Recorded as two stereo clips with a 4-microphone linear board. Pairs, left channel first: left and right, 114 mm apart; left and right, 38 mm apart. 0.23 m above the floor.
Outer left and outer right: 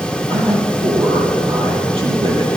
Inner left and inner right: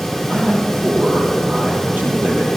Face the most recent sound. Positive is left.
turn(degrees=-50)  # may be behind; listen again after turning